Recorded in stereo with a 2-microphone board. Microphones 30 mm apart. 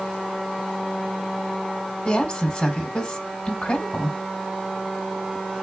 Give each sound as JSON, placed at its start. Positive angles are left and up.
{"t": 2.0, "sound": "a woman speaking", "side_deg": 15, "distance_m": 1.4}